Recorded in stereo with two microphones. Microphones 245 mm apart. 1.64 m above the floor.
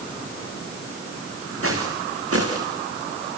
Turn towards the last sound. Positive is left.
turn(degrees=-70)  # may be behind; listen again after turning